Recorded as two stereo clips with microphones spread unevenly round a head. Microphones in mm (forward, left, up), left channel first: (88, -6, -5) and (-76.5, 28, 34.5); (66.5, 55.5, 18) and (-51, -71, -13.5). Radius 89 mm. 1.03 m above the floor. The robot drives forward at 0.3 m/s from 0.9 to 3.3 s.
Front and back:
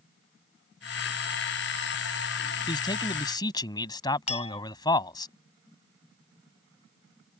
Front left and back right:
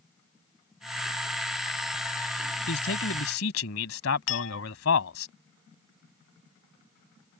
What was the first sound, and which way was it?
A man speaking, 55° left.